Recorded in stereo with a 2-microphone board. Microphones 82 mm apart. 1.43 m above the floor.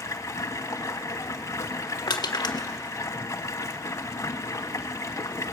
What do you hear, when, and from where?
0.0 s running water: 40° left (ahead or behind), 1.6 m
2.1 s crushing: 65° left (ahead or behind), 1.5 m